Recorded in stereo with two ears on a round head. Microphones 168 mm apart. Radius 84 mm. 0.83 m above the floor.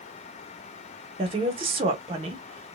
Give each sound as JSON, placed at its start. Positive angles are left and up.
{"t": 1.2, "sound": "a woman speaking", "side_deg": -30, "distance_m": 1.0}